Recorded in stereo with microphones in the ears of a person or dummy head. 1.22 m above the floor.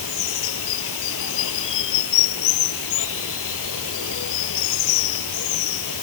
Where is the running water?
75° left (ahead or behind).